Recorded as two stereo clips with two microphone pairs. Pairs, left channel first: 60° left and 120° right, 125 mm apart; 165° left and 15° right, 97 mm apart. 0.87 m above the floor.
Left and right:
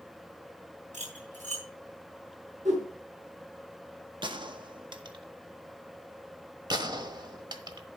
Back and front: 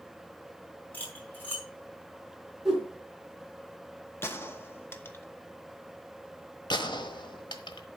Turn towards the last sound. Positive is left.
turn(degrees=-170)